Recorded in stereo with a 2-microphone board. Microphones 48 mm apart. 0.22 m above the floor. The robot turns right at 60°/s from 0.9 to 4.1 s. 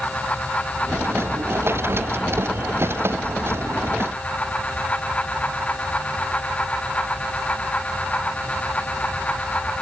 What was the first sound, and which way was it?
Only background noise.